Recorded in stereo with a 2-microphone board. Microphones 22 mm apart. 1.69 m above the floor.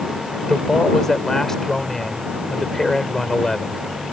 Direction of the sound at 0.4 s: 20° left (ahead or behind).